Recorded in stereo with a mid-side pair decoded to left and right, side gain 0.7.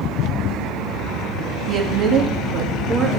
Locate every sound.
1.7 s a woman speaking: 35° right, 1.7 m